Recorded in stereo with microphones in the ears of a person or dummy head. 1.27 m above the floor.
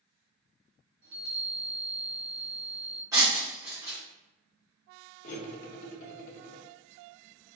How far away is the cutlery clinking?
About 0.8 m.